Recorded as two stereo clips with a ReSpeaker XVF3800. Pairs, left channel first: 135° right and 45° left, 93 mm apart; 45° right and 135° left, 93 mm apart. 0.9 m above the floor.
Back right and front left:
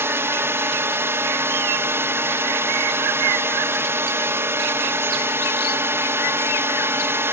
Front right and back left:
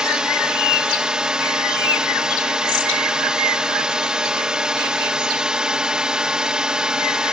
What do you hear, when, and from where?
0.0 s a drone: 65° left